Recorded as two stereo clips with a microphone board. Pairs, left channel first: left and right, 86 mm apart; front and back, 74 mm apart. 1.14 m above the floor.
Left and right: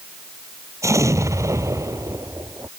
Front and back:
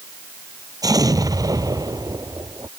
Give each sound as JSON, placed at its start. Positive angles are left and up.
{"t": 0.8, "sound": "an explosion", "azimuth_deg": -145}